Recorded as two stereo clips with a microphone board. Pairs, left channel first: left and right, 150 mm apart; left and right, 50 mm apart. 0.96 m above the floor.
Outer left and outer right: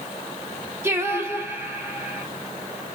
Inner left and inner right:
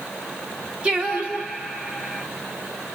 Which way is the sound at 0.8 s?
15° right (ahead or behind).